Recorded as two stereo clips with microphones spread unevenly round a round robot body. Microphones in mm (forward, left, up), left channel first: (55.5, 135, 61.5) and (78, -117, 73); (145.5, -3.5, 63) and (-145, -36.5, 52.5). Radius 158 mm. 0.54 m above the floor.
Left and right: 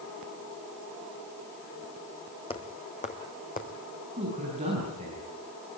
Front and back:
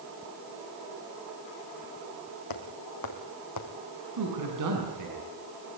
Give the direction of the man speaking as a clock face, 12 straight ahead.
5 o'clock.